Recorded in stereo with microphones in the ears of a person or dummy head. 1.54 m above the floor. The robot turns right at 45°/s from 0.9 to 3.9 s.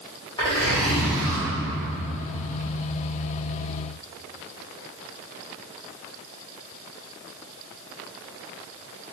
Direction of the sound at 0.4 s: 25° left (ahead or behind).